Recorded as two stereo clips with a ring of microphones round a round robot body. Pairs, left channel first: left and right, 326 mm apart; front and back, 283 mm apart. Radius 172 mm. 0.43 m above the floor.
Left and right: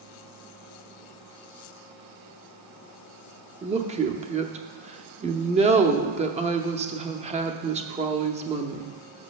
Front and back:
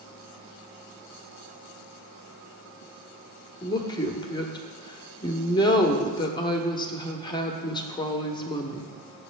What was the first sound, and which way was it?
A woman speaking, 50° right.